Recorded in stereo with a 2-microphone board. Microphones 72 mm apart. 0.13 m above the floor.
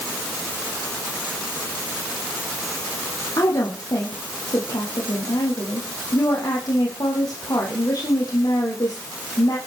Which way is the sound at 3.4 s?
60° left (ahead or behind).